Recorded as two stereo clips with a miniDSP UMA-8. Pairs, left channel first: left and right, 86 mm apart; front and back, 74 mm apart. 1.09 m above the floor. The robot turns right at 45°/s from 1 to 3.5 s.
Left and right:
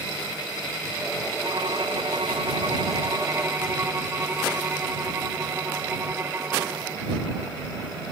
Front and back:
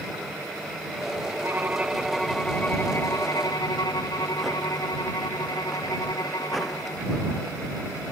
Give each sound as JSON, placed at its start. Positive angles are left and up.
{"t": 1.4, "sound": "a violin", "azimuth_deg": -120}